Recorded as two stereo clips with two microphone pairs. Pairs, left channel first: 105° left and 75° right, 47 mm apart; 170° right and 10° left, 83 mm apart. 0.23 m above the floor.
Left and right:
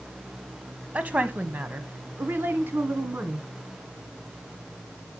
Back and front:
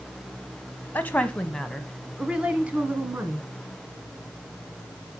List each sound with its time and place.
0.9 s a woman speaking: 115° right, 1.3 m; by 3.5 s 45° right, 1.9 m